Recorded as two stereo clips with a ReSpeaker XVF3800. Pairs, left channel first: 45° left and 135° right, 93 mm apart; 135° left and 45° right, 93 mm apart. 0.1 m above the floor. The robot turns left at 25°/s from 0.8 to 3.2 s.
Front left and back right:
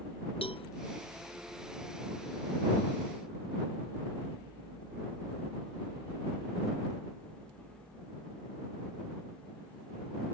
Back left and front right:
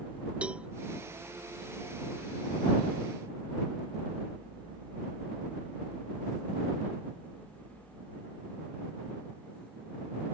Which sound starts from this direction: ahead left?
A cowbell, at 0.4 s.